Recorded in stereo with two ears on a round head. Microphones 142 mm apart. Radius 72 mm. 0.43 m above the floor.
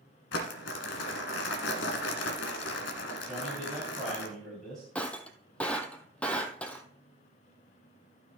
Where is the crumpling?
85° left, 1.4 m.